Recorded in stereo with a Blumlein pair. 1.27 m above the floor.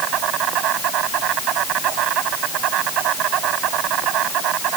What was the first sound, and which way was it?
An insect, 35° right.